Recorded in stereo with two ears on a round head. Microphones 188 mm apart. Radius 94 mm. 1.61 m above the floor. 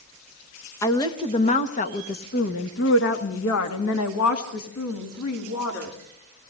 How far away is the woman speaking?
About 1.9 m.